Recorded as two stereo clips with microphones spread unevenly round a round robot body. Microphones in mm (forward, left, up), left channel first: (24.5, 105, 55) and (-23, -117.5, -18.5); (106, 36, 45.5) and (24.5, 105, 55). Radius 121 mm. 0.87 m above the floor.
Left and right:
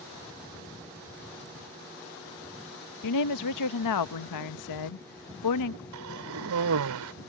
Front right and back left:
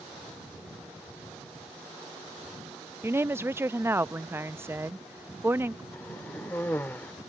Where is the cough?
120° right.